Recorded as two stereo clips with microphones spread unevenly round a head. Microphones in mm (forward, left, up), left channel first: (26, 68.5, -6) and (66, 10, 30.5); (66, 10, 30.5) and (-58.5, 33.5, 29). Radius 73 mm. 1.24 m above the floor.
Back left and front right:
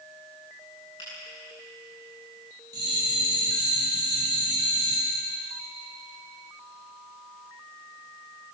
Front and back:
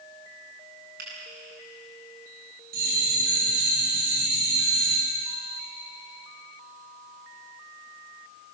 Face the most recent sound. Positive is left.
turn(degrees=-170)